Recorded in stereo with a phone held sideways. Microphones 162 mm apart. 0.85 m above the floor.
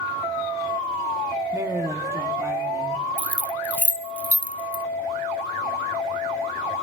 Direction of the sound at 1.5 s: 20° right (ahead or behind).